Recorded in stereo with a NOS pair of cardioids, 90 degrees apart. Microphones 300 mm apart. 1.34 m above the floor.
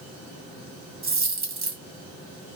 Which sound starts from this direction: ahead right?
A dropped coin, at 1.0 s.